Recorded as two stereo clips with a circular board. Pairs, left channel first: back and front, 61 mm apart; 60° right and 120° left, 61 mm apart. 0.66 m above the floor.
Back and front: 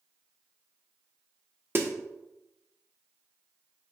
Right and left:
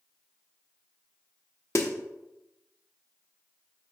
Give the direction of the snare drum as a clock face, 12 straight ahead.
1 o'clock.